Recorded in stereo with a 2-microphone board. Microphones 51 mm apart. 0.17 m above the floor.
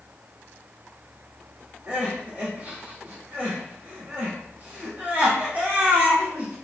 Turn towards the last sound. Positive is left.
turn(degrees=-30)  # may be behind; listen again after turning